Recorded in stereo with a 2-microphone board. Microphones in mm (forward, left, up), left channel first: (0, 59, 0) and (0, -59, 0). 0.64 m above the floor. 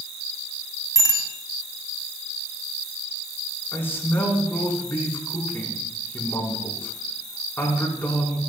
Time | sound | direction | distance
0.9 | a bicycle bell | 35° left (ahead or behind) | 3 m
3.7 | a man speaking | 20° left (ahead or behind) | 5.5 m